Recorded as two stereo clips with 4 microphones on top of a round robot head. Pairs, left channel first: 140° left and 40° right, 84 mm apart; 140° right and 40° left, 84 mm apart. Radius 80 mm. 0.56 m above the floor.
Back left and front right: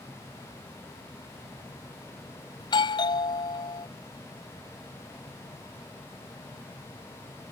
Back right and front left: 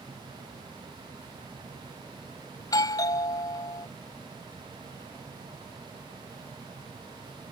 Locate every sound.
2.6 s a doorbell: 175° left